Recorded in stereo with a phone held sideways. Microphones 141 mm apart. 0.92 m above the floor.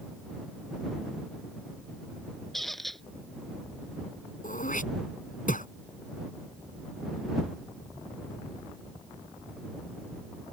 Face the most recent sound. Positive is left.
turn(degrees=80)